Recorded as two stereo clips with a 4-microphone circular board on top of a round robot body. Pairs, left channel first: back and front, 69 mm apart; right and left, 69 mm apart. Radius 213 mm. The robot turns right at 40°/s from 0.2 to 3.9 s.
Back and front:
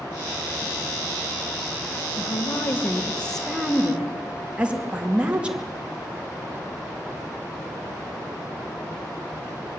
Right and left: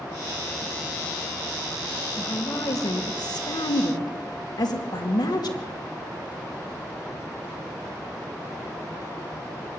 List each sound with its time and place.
2.2 s a woman speaking: 145° right, 2.5 m; by 5.6 s 75° right, 2.5 m